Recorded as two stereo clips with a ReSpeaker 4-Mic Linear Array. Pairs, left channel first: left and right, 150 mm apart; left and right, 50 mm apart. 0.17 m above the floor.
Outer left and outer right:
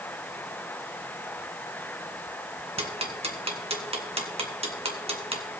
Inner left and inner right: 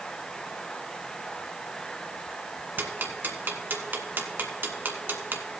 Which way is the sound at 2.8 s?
40° right (ahead or behind).